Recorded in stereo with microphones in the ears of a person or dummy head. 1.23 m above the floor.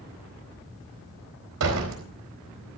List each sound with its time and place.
1.6 s a door slam: 80° right, 4 m